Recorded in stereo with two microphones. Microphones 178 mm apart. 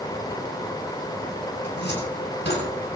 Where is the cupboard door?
85° left, 6 m.